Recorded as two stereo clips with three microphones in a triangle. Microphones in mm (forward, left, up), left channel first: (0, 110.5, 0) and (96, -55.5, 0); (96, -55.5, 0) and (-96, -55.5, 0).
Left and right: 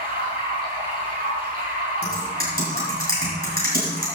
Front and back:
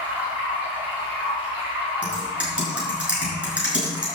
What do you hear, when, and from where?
0.0 s running water: 100° right, 4.5 m
2.0 s typing on a keyboard: 95° right, 5.5 m